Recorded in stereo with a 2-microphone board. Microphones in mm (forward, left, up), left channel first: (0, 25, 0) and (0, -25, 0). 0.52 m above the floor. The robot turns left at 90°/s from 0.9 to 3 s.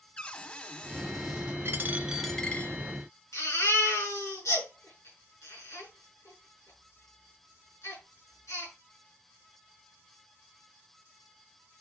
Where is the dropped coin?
125° right, 1.0 m; by 2.8 s 135° left, 1.0 m.